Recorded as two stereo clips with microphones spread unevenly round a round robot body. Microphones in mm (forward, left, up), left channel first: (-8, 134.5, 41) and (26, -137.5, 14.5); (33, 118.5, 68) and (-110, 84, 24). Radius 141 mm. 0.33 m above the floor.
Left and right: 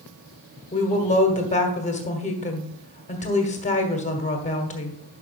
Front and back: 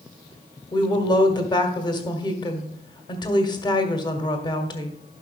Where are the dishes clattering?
I don't hear dishes clattering.